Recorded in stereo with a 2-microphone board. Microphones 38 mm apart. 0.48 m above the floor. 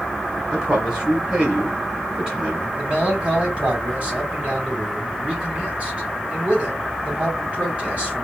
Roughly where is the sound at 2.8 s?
Right.